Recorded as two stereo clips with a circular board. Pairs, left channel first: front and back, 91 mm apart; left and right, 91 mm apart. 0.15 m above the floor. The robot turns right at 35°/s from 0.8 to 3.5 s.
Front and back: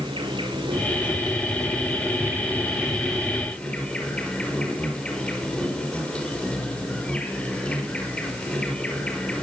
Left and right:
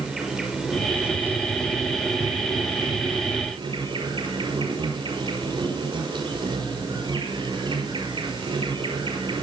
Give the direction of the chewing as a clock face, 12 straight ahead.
No chewing in this recording.